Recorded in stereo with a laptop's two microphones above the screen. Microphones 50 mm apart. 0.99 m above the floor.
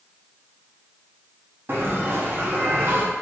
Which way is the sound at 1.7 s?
45° right (ahead or behind).